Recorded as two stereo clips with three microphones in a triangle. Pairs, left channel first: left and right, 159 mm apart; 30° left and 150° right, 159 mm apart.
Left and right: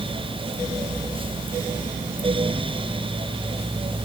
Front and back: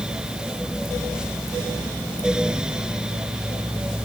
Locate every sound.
Only background noise.